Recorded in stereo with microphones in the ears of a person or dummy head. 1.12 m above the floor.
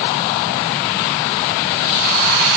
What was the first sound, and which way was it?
Only background noise.